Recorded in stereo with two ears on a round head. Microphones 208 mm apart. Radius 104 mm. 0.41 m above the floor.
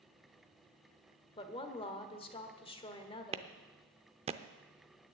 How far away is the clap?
About 0.6 m.